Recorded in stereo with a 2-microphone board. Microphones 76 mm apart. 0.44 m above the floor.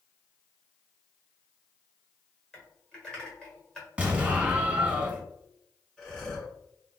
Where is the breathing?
10° left (ahead or behind), 2.0 m.